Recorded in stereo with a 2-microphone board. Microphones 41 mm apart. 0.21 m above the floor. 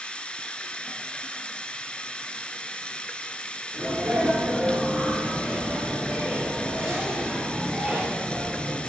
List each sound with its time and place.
0.0 s running water: 25° left (ahead or behind), 1.1 m
3.7 s a sneeze: 30° right (ahead or behind), 4 m